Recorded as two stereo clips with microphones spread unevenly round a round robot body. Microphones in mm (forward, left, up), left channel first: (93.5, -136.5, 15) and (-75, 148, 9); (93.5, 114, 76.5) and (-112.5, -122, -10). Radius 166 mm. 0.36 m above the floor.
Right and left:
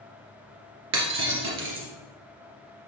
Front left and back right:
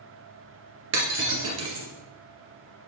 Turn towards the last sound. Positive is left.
turn(degrees=175)